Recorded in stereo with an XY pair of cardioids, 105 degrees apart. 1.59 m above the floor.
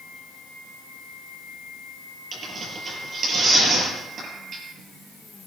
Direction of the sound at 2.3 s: 45° right.